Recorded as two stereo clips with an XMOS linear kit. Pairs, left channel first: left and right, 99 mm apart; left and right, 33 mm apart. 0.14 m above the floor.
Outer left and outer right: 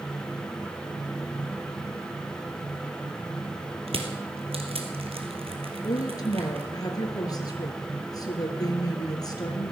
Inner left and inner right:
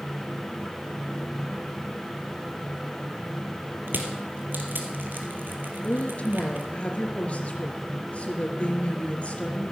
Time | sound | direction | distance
3.9 | crushing | 70° right (ahead or behind) | 2 m
5.8 | a woman speaking | 40° left (ahead or behind) | 2.5 m